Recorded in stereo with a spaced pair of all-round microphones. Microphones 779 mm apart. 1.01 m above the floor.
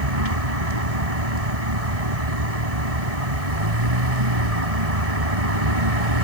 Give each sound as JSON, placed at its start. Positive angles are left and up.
{"t": 0.0, "sound": "a vehicle", "side_deg": -50}